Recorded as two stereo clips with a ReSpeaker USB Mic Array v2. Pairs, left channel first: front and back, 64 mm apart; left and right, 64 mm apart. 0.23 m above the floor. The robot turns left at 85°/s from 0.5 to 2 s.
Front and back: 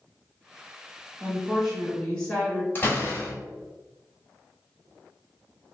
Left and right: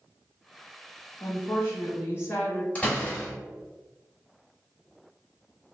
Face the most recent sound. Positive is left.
turn(degrees=35)